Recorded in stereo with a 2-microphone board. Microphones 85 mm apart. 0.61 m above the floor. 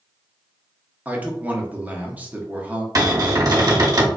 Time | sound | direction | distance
1.1 | a man speaking | 20° right (ahead or behind) | 0.7 m
3.0 | a cupboard door | 45° right (ahead or behind) | 0.8 m